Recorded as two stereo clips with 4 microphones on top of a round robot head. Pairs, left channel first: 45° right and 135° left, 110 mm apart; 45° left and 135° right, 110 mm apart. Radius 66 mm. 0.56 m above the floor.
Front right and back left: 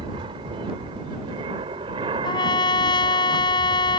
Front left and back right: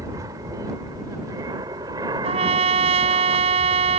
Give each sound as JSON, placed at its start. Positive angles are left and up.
{"t": 0.0, "sound": "an aircraft", "azimuth_deg": 170}
{"t": 2.2, "sound": "a trumpet", "azimuth_deg": -100}